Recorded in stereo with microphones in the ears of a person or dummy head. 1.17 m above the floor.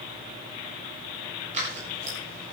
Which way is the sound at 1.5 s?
40° right (ahead or behind).